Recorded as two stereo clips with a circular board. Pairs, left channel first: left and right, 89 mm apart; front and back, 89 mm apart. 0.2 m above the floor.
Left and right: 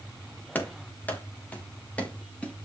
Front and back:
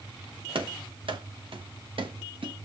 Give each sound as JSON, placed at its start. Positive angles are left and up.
{"t": 0.6, "sound": "running footsteps", "azimuth_deg": 160, "distance_m": 3.0}